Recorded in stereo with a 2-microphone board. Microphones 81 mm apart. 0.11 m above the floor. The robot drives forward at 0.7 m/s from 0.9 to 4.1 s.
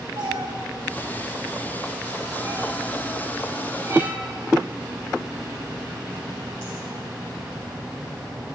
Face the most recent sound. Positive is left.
turn(degrees=-35)  # may be behind; listen again after turning